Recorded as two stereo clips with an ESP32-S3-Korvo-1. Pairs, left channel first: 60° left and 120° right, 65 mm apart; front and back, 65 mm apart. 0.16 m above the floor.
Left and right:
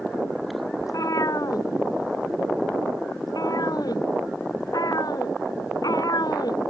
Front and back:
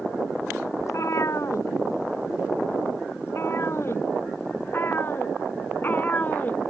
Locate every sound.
0.8 s a cat meowing: 35° left; by 6.7 s 65° left